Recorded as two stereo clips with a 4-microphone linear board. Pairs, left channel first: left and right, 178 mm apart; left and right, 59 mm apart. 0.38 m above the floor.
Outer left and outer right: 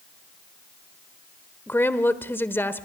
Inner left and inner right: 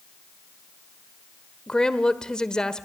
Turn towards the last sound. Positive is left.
turn(degrees=15)  # may be behind; listen again after turning